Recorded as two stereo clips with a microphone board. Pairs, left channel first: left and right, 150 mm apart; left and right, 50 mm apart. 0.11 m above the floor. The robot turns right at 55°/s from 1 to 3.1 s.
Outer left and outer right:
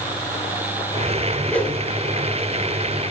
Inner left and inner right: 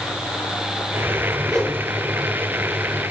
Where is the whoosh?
5° left (ahead or behind), 1.4 m; by 1.8 s 15° left (ahead or behind), 1.4 m.